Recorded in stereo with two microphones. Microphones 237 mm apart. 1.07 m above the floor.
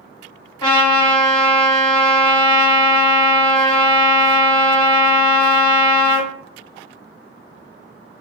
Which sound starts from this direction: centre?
A trumpet, at 0.6 s.